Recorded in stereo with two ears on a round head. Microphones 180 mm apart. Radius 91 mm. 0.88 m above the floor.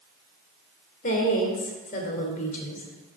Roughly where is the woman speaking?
Left.